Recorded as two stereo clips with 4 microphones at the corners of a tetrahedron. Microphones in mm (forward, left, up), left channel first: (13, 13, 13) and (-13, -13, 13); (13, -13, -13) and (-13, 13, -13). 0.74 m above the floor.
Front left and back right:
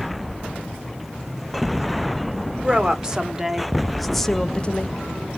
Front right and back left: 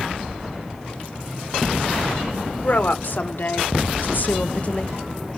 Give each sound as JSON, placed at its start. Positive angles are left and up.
{"t": 2.6, "sound": "a woman speaking", "azimuth_deg": -70, "distance_m": 1.9}